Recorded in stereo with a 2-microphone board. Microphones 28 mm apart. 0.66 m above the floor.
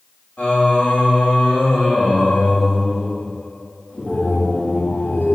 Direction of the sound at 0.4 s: 55° left (ahead or behind).